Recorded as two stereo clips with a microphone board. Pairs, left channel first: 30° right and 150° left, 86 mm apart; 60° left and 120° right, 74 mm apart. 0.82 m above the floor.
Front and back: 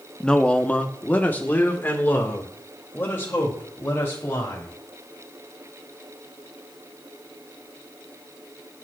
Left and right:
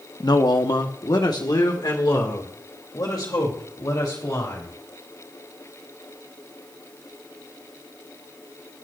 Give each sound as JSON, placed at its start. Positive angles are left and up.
{"t": 0.2, "sound": "a man speaking", "azimuth_deg": 50, "distance_m": 0.8}